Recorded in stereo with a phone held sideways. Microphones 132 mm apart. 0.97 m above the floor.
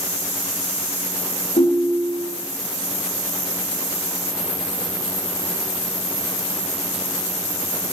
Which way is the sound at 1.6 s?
80° left.